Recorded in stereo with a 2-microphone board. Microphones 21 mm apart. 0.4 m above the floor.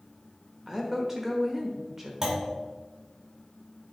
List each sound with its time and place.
0.7 s a woman speaking: 20° right (ahead or behind), 1.0 m
2.2 s a clunk: 30° right (ahead or behind), 1.4 m